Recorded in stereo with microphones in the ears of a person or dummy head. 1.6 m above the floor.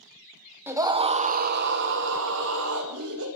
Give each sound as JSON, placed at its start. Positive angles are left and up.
{"t": 0.7, "sound": "a scream", "side_deg": -10, "distance_m": 0.8}